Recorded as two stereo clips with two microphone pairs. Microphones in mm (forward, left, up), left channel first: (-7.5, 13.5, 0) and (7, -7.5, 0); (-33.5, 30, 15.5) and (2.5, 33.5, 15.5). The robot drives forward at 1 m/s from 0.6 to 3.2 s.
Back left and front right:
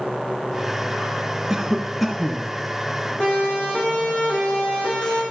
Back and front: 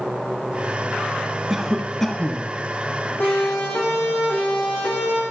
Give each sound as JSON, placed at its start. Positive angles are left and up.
{"t": 1.5, "sound": "a cough", "azimuth_deg": -45, "distance_m": 1.2}
{"t": 3.2, "sound": "a siren", "azimuth_deg": 175, "distance_m": 10.0}